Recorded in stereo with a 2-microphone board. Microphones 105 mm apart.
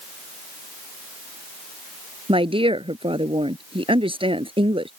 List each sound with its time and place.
2.3 s a woman speaking: 60° right (ahead or behind)